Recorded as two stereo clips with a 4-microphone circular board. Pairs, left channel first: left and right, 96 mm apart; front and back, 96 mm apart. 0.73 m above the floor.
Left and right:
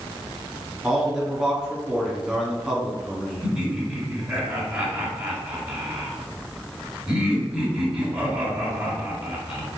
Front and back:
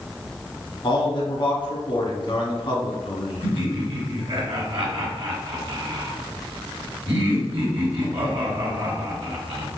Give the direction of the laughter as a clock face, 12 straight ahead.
6 o'clock.